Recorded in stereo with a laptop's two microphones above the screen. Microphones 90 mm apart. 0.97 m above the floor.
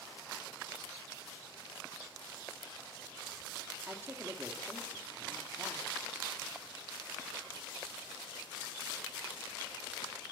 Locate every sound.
3.9 s a woman speaking: 25° right (ahead or behind), 2.5 m